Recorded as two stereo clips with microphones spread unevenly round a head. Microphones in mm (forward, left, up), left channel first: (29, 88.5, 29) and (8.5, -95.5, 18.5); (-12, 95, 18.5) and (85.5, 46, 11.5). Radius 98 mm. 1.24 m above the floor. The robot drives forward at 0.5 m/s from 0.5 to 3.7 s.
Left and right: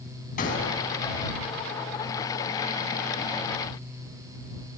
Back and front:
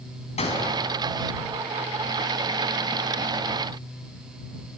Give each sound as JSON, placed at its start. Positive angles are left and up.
{"t": 0.4, "sound": "a gunshot", "azimuth_deg": 135, "distance_m": 5.5}